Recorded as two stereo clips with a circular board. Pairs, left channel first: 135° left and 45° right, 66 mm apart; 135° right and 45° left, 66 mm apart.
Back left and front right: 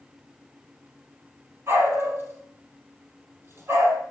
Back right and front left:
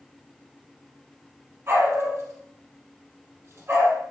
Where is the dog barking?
Straight ahead, 3 m.